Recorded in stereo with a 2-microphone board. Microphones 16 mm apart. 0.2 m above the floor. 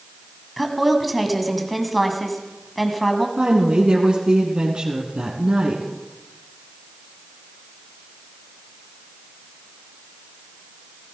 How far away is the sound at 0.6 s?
About 1.8 m.